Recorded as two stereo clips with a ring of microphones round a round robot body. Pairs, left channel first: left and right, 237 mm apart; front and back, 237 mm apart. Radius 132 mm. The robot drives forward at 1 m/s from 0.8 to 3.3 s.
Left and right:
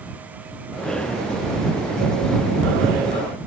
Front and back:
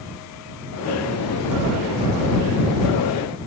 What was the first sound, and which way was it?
Only background noise.